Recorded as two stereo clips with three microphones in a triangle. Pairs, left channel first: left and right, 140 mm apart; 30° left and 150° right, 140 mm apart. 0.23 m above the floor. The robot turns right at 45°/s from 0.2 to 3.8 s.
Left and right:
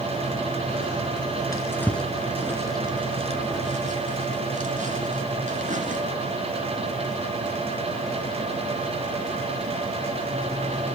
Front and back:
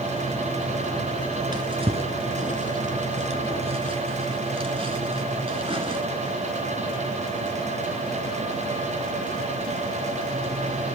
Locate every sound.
1.5 s a drawer: 155° left, 1.6 m; by 6.0 s 105° right, 1.6 m